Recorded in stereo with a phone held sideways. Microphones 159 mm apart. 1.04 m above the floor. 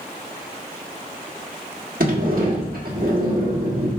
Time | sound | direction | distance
2.0 | a sliding door | 65° right (ahead or behind) | 1.5 m